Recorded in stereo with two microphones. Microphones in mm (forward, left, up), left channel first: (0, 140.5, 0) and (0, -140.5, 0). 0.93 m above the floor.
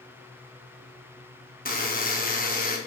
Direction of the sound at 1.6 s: 30° left (ahead or behind).